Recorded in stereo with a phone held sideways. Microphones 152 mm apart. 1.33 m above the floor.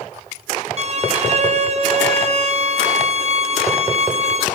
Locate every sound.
0.8 s a violin: 45° right (ahead or behind), 0.7 m